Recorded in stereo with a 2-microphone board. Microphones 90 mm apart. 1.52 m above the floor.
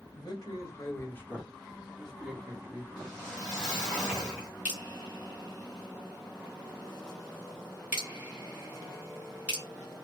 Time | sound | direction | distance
0.1 | a man speaking | 50° left (ahead or behind) | 1.2 m
3.0 | a whoosh | 5° left (ahead or behind) | 1.6 m
4.7 | dripping | 15° right (ahead or behind) | 1.4 m